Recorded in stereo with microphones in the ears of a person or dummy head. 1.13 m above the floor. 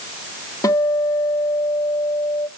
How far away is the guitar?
About 1.8 m.